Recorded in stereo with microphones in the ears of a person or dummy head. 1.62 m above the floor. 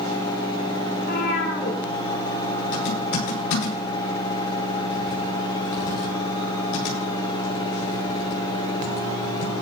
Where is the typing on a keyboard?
65° left (ahead or behind), 9 m.